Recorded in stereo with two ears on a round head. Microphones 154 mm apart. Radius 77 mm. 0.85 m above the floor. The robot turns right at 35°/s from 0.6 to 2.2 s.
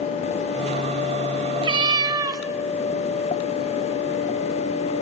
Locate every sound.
1.6 s a cat meowing: 30° right (ahead or behind), 0.8 m; by 2.4 s 20° right (ahead or behind), 0.8 m